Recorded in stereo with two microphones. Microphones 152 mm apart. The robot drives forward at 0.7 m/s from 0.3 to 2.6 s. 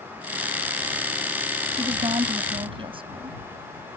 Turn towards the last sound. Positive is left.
turn(degrees=-35)  # may be behind; listen again after turning